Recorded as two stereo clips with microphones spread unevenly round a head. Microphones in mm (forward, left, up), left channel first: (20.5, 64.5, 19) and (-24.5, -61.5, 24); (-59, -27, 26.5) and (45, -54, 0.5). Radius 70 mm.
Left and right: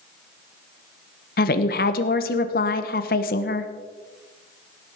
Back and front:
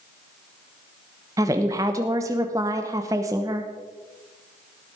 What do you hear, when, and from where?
1.4 s a woman speaking: 60° left, 1.1 m